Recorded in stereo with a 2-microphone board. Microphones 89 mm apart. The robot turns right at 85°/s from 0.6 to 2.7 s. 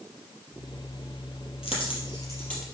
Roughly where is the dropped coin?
Left.